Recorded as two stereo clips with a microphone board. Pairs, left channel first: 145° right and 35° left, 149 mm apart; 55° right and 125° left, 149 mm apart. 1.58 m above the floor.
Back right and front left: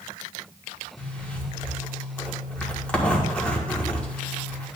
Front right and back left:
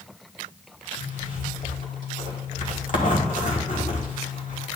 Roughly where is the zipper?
Ahead right.